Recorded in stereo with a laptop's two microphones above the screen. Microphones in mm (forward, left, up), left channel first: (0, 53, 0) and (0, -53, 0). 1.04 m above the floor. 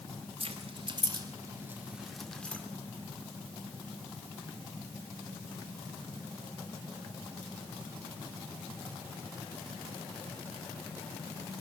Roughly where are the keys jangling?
Right.